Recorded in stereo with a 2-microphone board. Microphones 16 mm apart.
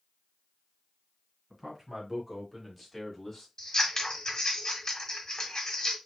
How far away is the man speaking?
About 1.6 m.